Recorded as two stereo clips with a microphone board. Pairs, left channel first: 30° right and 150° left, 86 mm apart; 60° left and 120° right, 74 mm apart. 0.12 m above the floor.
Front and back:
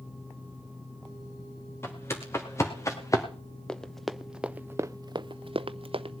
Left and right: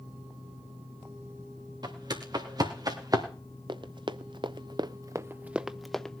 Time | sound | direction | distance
1.8 | footsteps | 90° right | 3 m
3.7 | running footsteps | 110° right | 0.9 m